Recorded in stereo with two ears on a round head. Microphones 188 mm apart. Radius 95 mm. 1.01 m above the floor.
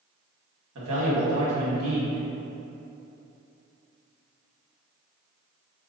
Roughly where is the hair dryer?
I don't hear a hair dryer.